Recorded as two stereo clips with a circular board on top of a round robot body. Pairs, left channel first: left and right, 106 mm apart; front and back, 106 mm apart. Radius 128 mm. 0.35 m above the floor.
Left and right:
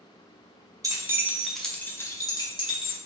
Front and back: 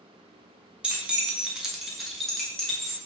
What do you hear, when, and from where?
0.8 s keys jangling: 105° right, 0.8 m; by 3.0 s 85° left, 1.1 m